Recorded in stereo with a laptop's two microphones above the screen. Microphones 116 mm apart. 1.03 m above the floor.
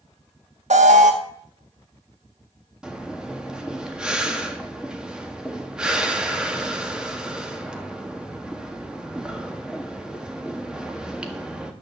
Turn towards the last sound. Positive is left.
turn(degrees=-5)  # may be behind; listen again after turning